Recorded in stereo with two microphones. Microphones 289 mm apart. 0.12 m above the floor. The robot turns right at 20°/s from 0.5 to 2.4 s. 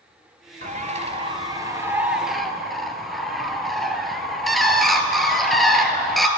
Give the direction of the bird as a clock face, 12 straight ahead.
1 o'clock.